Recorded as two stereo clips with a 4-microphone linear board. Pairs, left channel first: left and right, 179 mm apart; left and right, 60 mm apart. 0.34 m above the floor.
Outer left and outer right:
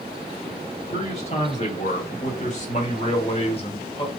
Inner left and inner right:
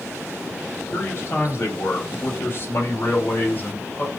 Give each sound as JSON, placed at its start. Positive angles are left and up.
{"t": 0.9, "sound": "a man speaking", "side_deg": 40, "distance_m": 2.5}